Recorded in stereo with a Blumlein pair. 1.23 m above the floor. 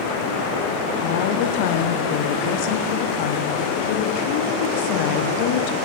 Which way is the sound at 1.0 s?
50° left.